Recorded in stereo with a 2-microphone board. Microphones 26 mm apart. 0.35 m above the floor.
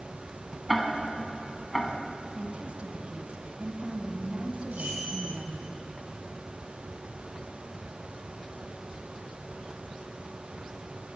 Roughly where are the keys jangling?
Right.